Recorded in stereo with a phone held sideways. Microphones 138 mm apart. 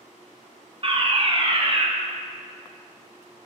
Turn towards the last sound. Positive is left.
turn(degrees=-45)  # may be behind; listen again after turning